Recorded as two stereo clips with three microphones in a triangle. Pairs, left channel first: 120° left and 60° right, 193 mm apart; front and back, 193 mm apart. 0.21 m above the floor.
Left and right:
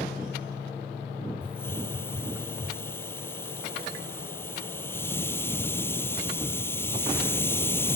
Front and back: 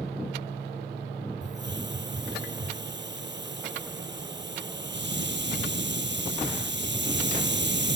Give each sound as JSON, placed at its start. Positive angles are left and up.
{"t": 1.4, "sound": "a hiss", "azimuth_deg": -160}